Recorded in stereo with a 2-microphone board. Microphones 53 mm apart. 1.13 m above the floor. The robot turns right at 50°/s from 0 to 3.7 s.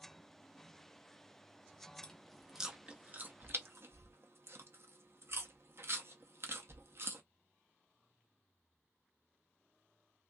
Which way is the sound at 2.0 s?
15° left (ahead or behind).